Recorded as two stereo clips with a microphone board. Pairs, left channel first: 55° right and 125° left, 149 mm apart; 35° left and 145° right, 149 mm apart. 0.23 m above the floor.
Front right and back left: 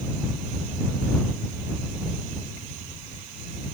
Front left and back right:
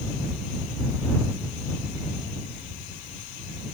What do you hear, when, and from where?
Only background noise.